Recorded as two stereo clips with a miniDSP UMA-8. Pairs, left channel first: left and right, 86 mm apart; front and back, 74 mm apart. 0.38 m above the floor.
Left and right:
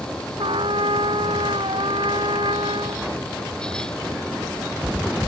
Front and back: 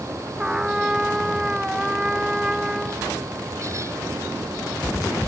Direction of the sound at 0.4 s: 100° right.